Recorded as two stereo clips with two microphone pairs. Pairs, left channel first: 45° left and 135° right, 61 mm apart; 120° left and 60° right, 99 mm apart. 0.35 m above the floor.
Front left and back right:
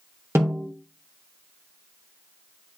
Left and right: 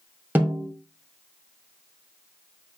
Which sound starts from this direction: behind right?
A snare drum, at 0.3 s.